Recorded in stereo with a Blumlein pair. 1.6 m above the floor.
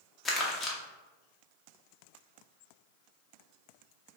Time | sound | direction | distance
0.2 | crumpling | 15° left | 1.0 m